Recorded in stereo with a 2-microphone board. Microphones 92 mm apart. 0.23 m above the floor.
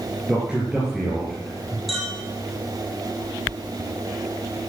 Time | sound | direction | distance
0.3 | a man speaking | 5° right (ahead or behind) | 4 m
1.9 | a clink | centre (ahead or behind) | 4 m